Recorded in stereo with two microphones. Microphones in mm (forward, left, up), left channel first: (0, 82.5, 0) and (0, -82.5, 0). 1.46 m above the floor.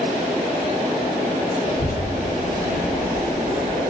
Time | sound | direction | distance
1.7 | a child speaking | 50° left (ahead or behind) | 1.3 m